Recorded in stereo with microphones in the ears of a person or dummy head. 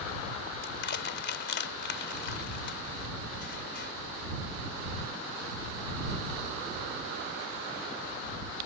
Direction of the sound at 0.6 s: 60° left (ahead or behind).